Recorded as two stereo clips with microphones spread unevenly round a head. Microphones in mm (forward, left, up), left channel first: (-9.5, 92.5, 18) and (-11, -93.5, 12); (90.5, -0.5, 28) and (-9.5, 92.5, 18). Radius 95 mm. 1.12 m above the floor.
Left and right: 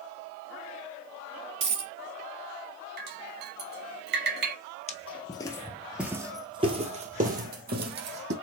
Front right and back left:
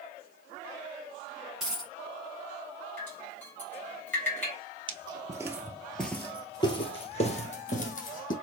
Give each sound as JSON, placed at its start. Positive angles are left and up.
{"t": 1.6, "sound": "a dropped coin", "azimuth_deg": -130, "distance_m": 1.2}
{"t": 3.0, "sound": "dripping", "azimuth_deg": -120, "distance_m": 1.6}
{"t": 4.9, "sound": "footsteps", "azimuth_deg": 105, "distance_m": 1.3}